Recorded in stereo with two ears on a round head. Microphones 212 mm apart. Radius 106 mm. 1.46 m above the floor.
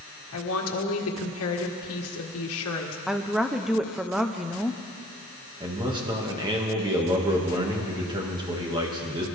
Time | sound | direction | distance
0.3 | a woman speaking | 65° left (ahead or behind) | 1.7 m
3.1 | a woman speaking | centre (ahead or behind) | 0.7 m
5.6 | a man speaking | 20° right (ahead or behind) | 1.9 m